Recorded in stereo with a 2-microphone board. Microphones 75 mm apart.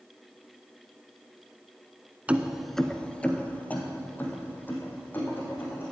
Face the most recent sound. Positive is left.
turn(degrees=25)  # may be behind; listen again after turning